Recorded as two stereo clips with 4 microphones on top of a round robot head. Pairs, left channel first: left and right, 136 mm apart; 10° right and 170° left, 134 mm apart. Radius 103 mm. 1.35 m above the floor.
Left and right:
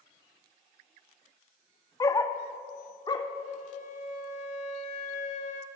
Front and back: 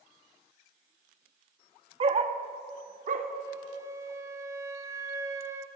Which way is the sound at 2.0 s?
145° left.